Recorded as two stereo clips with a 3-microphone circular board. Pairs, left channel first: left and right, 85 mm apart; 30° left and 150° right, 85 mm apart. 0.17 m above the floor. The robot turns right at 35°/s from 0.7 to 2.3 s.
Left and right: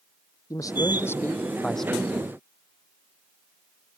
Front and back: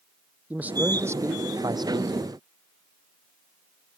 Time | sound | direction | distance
0.5 | a man speaking | 140° left | ?